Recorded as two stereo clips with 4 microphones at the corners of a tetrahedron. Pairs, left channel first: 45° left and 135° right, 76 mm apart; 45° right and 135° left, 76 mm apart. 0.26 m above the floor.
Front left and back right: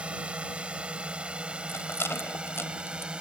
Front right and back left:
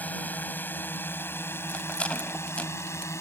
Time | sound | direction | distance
0.0 | a drone | 80° right | ?
1.7 | a rattle | 15° left | ?